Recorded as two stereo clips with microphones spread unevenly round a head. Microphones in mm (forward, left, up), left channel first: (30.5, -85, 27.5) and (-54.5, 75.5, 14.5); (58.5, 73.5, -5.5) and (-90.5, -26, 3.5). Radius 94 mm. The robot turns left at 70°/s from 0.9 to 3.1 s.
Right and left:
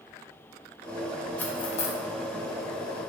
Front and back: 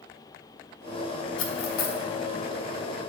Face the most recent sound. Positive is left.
turn(degrees=-100)